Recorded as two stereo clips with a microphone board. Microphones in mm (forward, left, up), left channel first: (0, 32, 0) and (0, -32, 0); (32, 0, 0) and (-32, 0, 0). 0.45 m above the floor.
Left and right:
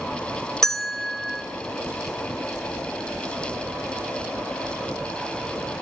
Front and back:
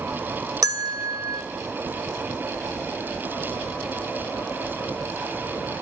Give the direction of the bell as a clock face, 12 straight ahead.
6 o'clock.